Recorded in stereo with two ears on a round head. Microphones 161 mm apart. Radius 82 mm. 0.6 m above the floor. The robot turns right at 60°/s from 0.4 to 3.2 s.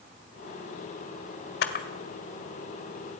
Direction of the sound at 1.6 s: 70° left (ahead or behind).